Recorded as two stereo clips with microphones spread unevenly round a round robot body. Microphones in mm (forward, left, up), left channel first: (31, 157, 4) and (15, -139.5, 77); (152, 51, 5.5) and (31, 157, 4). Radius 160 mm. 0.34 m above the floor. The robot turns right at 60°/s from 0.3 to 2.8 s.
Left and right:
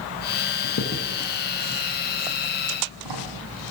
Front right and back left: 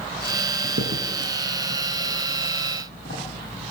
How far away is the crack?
About 10 m.